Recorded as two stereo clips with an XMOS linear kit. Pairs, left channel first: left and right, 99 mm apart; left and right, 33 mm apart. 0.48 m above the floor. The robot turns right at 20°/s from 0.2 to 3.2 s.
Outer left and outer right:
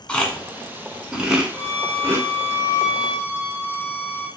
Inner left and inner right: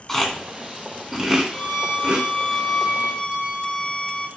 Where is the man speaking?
No man speaking in this recording.